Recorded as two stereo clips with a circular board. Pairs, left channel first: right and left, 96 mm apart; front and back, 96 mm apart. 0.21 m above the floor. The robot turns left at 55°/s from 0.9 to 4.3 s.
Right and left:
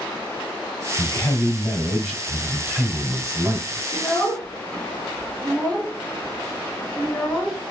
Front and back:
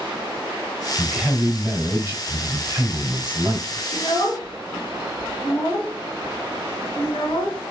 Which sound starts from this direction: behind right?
A man speaking, at 1.0 s.